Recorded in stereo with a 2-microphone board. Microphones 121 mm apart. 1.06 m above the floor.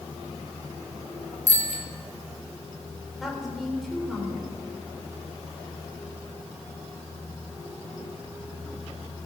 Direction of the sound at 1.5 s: 80° right.